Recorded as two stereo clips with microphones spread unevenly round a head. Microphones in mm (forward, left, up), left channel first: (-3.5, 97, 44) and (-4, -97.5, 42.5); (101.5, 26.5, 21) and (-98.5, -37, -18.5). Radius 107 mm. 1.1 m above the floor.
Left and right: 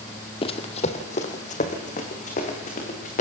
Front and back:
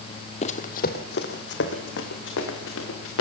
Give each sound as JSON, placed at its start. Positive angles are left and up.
{"t": 0.4, "sound": "running footsteps", "azimuth_deg": 40, "distance_m": 1.4}